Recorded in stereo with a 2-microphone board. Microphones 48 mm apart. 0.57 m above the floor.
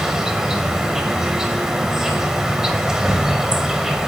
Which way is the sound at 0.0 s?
10° right (ahead or behind).